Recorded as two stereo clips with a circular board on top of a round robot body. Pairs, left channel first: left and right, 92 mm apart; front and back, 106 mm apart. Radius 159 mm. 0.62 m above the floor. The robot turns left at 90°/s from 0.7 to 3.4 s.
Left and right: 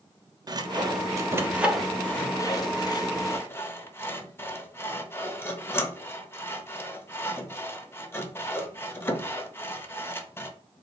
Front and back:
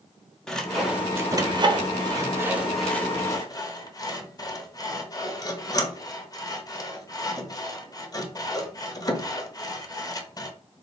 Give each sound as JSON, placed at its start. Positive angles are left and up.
{"t": 0.5, "sound": "sawing", "azimuth_deg": -80, "distance_m": 0.8}